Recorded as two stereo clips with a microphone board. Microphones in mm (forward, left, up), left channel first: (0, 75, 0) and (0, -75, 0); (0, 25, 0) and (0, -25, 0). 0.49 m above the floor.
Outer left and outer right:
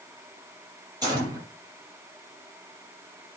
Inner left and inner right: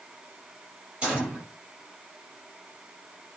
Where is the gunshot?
25° right (ahead or behind), 6 m.